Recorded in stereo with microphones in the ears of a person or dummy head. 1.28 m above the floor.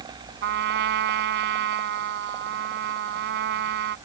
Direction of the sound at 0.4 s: 65° right (ahead or behind).